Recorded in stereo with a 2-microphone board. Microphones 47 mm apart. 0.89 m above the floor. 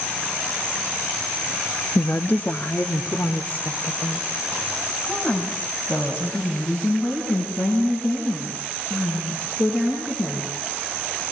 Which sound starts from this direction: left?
A woman speaking, at 1.9 s.